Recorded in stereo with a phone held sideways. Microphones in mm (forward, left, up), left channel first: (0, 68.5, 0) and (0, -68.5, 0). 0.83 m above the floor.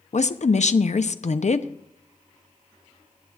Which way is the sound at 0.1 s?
60° left (ahead or behind).